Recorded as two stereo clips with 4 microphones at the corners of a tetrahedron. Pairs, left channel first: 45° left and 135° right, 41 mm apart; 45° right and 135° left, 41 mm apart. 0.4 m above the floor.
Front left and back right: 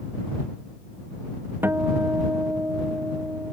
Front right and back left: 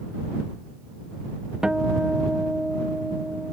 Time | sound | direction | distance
1.6 | a guitar | 155° right | ?